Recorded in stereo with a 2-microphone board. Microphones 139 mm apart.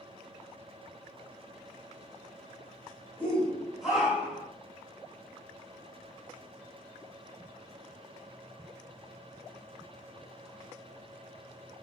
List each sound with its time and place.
3.2 s a shout: 10° left (ahead or behind), 1.7 m; by 4.5 s 15° right (ahead or behind), 1.8 m